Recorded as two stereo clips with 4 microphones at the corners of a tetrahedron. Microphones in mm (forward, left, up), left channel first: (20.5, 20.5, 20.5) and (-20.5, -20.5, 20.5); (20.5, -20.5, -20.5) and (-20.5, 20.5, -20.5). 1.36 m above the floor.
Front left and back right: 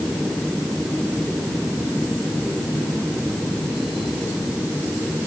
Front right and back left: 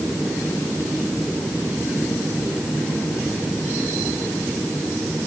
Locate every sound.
Only background noise.